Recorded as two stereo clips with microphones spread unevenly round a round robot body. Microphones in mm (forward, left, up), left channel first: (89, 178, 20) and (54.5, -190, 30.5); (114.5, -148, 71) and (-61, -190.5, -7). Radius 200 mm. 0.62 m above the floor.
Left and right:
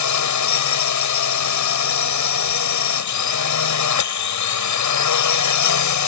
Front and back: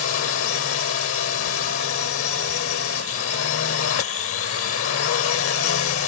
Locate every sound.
0.0 s a drone: 45° left